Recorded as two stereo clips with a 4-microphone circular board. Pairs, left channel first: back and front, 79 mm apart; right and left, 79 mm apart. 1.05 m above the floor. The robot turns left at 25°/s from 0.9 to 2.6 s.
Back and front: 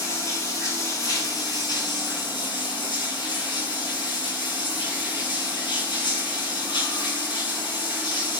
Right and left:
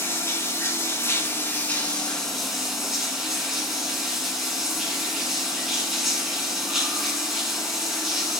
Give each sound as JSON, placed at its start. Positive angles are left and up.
{"t": 0.0, "sound": "running water", "azimuth_deg": -140, "distance_m": 3.5}